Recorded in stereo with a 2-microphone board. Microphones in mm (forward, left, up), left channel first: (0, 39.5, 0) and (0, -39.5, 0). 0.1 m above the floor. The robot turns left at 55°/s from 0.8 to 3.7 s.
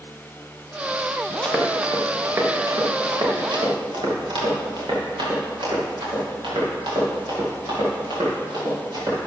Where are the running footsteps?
10° left (ahead or behind), 3 m; by 9.2 s 85° right, 9.5 m.